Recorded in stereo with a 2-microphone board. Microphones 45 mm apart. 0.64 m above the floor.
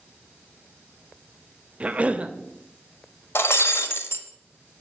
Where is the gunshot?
No gunshot in this recording.